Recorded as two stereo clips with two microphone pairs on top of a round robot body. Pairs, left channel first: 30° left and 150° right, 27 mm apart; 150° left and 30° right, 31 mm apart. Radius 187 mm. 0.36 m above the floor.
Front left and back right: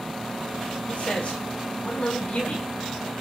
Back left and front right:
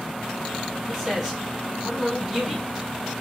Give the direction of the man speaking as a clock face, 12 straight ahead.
10 o'clock.